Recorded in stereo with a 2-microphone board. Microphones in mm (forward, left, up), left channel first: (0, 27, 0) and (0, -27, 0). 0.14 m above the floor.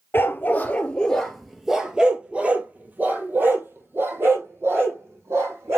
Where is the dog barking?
40° left (ahead or behind), 1.0 m; by 5.8 s 55° right (ahead or behind), 2.5 m.